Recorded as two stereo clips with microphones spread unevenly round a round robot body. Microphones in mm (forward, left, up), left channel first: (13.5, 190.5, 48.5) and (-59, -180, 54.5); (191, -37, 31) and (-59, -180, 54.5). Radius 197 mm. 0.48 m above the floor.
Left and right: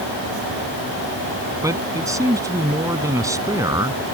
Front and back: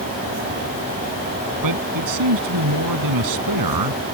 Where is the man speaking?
175° left.